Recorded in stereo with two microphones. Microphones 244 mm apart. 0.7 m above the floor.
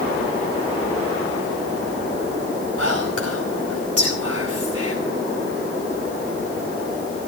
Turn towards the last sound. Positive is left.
turn(degrees=-70)  # may be behind; listen again after turning